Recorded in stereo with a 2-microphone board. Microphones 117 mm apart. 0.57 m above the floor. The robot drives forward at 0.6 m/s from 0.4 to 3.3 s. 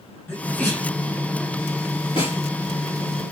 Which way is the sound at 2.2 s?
50° left (ahead or behind).